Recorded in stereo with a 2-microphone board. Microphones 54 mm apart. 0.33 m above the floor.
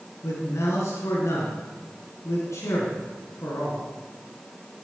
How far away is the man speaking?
About 3 m.